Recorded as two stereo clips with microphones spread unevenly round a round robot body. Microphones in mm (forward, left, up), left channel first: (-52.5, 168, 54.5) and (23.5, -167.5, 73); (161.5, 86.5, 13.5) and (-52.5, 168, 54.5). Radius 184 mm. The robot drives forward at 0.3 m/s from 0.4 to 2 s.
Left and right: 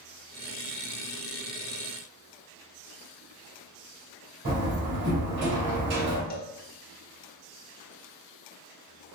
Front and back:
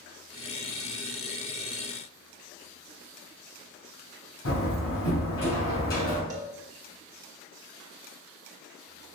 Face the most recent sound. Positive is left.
turn(degrees=115)